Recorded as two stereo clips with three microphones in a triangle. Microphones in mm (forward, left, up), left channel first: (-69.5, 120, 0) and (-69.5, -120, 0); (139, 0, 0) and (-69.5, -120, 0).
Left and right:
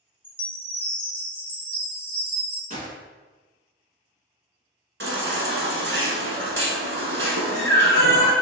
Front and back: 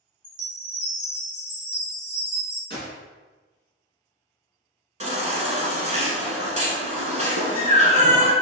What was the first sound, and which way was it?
A chime, 170° right.